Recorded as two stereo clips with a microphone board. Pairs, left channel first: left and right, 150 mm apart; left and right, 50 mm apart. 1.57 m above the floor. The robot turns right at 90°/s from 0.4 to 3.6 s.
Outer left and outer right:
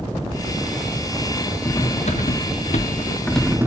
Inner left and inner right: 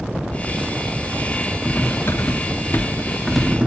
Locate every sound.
1.6 s cutlery clinking: 20° left, 1.9 m; by 3.7 s 165° right, 1.9 m